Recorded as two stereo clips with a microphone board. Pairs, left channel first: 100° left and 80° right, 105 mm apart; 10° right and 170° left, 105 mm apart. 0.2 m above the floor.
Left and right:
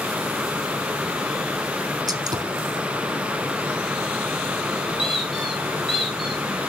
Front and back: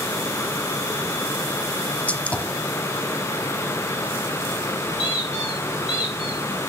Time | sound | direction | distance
2.1 | a gunshot | 80° right | 1.1 m
5.0 | a squeak | 10° left | 4 m